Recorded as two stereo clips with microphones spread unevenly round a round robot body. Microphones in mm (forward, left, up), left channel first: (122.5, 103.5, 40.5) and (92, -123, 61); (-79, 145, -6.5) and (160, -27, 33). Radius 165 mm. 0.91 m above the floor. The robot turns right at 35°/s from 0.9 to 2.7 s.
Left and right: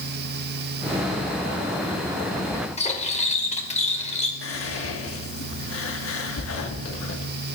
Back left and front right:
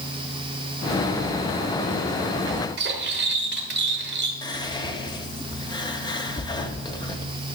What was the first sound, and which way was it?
Cutlery clinking, 20° left.